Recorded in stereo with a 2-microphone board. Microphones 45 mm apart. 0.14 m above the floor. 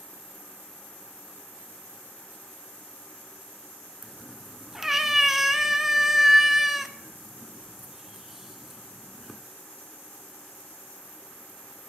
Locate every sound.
4.0 s a cat meowing: 5° right (ahead or behind), 0.5 m